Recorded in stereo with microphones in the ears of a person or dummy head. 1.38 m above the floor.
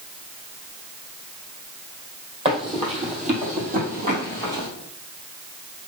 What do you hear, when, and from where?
2.5 s running footsteps: 25° right (ahead or behind), 2 m; by 4.7 s 50° right (ahead or behind), 2 m